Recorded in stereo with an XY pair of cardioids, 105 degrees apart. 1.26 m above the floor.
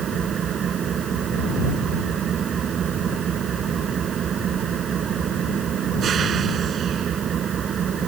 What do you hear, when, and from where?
0.0 s an engine running: 55° right